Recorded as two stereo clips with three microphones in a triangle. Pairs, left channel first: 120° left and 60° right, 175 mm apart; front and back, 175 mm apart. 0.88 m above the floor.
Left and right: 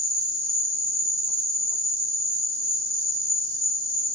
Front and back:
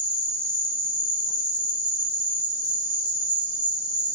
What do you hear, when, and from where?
0.0 s an insect: 65° left, 1.4 m